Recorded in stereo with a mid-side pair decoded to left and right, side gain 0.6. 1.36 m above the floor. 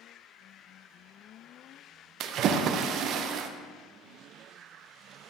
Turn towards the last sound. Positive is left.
turn(degrees=-55)